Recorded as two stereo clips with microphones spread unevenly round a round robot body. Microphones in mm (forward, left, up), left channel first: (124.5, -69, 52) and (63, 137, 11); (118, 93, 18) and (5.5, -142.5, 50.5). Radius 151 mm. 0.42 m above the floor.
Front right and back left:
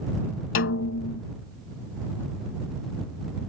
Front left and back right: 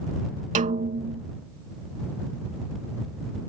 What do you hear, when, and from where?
0.6 s a snare drum: 55° right